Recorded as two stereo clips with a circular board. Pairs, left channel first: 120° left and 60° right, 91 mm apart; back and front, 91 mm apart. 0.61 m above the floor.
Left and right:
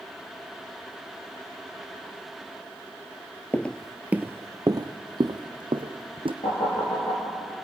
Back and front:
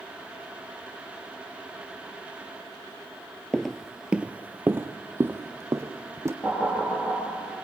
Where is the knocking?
110° left, 8 m.